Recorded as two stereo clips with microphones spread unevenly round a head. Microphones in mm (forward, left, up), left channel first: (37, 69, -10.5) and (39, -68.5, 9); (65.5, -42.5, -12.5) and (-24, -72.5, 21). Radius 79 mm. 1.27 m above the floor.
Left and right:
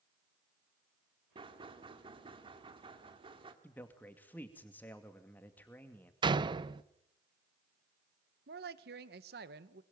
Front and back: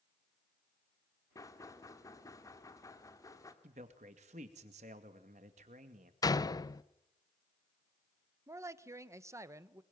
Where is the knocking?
40° right, 2.5 m.